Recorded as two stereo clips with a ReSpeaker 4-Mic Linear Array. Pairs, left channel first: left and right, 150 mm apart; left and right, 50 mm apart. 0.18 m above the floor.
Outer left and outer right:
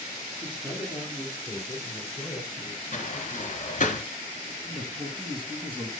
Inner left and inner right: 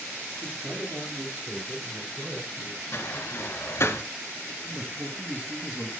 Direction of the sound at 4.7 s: 35° right (ahead or behind).